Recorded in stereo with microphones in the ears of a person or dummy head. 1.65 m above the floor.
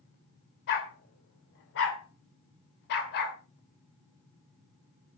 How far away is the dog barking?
About 3 m.